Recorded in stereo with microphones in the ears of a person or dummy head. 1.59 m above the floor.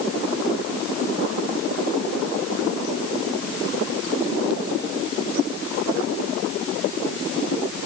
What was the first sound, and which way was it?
Only background noise.